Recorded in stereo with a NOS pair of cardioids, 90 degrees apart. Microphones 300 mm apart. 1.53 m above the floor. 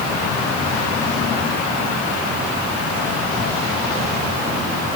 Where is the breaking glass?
No breaking glass in this recording.